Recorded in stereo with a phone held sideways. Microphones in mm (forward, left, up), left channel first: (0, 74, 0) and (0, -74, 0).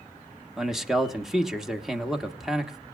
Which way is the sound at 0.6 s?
5° right (ahead or behind).